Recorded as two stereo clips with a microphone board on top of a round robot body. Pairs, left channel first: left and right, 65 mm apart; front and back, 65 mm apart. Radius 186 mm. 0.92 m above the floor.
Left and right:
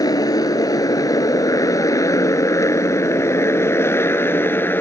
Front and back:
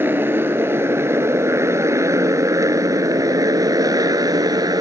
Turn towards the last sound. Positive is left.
turn(degrees=150)